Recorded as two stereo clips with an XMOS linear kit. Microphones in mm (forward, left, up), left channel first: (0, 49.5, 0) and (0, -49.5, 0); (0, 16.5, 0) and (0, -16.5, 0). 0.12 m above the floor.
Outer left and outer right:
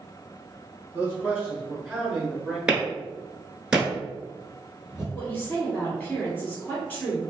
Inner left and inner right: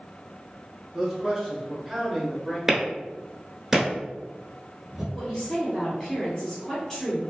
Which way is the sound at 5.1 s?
15° left (ahead or behind).